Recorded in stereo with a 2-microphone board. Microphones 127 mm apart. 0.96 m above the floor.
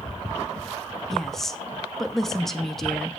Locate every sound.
1.1 s a woman speaking: 5° left (ahead or behind), 1.4 m